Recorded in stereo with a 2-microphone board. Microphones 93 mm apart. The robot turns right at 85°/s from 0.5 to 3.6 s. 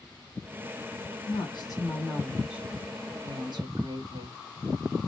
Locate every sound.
1.3 s a woman speaking: 85° left, 2 m; by 4.4 s 75° right, 2 m